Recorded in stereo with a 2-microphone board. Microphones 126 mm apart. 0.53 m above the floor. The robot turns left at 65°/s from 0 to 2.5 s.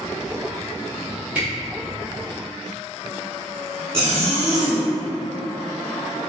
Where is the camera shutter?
10° right (ahead or behind), 1.4 m; by 1.5 s 5° right (ahead or behind), 1.4 m.